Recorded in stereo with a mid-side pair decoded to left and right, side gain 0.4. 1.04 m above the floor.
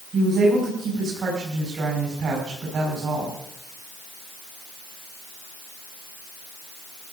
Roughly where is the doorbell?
I don't hear a doorbell.